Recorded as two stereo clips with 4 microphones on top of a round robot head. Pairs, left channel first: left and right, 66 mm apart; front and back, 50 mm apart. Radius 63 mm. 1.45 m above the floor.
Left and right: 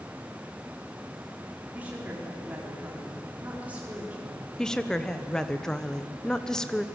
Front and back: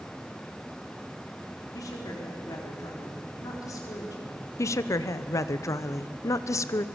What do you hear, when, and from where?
1.7 s a woman speaking: 20° right, 4 m
4.6 s a woman speaking: 10° left, 1.0 m